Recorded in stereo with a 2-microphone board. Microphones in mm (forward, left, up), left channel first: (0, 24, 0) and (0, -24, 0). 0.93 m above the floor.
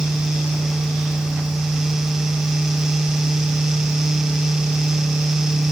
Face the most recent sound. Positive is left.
No sound to turn to.